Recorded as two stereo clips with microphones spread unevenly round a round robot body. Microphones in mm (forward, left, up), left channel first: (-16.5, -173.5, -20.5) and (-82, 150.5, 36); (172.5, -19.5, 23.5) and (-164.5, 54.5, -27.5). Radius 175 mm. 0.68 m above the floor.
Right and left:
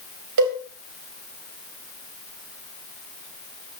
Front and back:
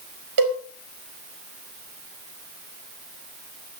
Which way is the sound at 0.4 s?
140° left.